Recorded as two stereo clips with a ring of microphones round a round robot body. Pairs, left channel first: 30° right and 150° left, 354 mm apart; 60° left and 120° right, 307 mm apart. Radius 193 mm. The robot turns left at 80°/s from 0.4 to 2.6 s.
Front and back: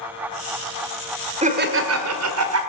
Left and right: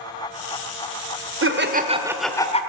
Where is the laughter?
145° right, 1.5 m; by 2.6 s 120° left, 1.5 m.